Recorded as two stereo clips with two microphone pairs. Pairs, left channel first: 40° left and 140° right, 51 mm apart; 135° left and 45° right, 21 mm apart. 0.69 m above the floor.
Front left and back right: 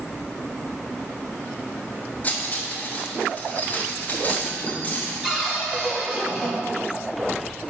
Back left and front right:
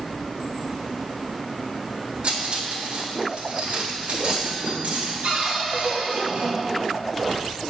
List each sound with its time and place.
2.2 s cutlery clinking: 20° right, 1.5 m
5.2 s a cupboard door: 65° right, 1.6 m